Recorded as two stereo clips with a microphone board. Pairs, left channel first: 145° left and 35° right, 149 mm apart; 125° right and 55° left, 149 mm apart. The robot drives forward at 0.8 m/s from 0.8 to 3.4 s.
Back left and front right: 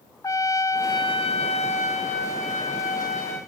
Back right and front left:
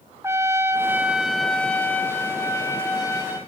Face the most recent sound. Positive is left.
turn(degrees=170)